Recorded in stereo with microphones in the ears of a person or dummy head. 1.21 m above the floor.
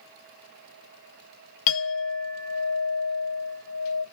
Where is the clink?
45° left (ahead or behind), 0.7 m.